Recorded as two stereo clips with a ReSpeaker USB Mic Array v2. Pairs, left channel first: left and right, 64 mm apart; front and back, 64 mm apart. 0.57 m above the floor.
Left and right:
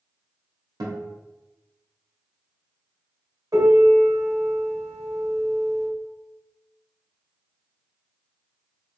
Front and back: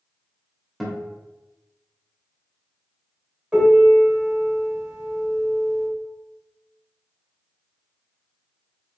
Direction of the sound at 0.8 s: 90° right.